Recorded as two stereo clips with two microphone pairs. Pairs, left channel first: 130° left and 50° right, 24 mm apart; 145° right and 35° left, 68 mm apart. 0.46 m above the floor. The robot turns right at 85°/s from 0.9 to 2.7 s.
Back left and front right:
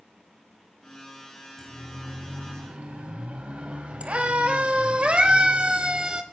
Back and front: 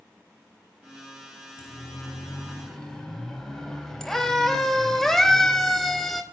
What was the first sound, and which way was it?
A siren, 160° right.